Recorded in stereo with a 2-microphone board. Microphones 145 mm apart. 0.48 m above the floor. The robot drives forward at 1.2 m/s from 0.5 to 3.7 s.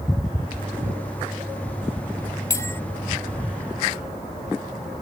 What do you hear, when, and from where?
2.5 s a bell: 20° left (ahead or behind)